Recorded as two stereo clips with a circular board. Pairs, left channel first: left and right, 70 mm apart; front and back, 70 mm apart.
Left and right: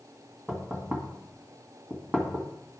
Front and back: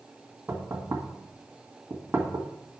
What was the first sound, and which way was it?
Knocking, 150° right.